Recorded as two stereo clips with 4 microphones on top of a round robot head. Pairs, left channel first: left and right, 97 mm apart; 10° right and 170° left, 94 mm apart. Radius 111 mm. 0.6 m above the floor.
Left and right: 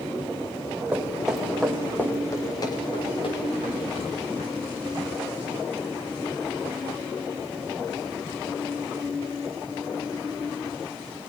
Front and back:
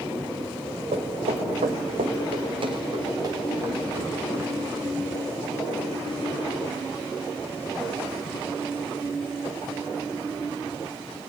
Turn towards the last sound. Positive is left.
turn(degrees=100)